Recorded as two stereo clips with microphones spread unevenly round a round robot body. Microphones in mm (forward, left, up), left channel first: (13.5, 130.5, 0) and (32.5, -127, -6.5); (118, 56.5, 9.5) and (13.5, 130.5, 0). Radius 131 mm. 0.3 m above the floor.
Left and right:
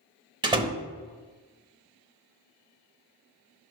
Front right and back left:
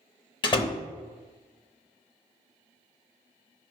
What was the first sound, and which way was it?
A door slam, 35° right.